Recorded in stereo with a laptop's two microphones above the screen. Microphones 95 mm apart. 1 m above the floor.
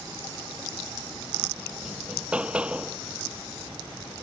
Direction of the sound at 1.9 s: 10° right (ahead or behind).